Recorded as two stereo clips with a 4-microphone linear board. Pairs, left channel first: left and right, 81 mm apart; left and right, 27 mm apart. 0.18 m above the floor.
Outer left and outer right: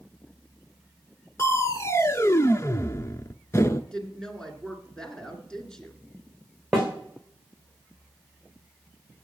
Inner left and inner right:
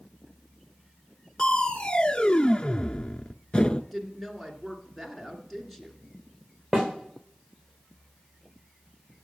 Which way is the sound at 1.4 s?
35° left (ahead or behind).